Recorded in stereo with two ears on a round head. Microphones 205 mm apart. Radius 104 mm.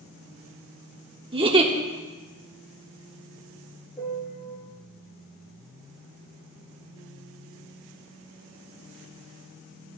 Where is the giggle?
25° right (ahead or behind), 0.9 m.